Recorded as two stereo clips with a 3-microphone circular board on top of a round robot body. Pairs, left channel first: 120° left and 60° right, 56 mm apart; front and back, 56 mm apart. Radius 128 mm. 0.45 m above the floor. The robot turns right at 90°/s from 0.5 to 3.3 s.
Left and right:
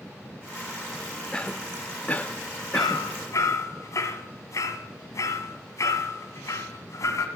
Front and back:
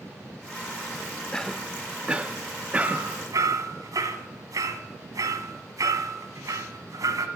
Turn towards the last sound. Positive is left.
turn(degrees=155)